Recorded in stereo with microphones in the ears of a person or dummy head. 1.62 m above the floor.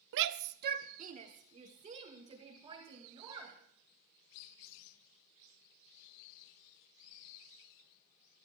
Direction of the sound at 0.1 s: 65° right (ahead or behind).